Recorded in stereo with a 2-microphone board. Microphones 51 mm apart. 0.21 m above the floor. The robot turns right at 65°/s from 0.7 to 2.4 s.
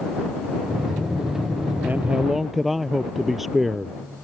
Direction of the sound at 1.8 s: 40° right.